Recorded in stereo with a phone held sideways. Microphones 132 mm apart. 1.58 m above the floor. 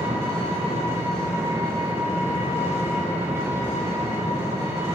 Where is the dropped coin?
No dropped coin in this recording.